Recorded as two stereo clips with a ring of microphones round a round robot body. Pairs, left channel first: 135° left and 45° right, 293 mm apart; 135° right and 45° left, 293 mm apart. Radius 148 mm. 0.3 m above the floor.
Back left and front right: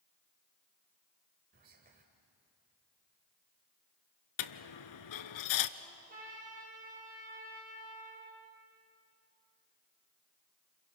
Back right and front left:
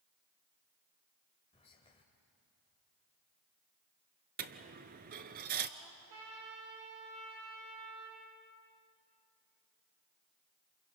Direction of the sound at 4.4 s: 105° left.